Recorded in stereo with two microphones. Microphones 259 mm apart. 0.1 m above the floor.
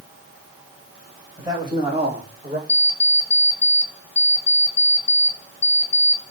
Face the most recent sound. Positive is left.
turn(degrees=55)  # may be behind; listen again after turning